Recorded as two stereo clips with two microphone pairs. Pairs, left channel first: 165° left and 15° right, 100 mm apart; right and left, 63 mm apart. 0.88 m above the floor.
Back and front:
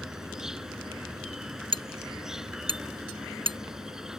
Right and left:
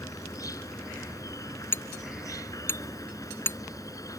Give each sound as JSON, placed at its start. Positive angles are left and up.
{"t": 0.0, "sound": "an insect", "azimuth_deg": -95}
{"t": 1.7, "sound": "hammering", "azimuth_deg": -40}